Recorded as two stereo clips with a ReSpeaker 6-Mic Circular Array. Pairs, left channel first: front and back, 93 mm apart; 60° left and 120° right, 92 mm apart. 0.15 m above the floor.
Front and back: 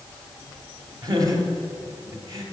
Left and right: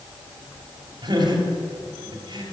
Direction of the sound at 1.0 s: 140° right.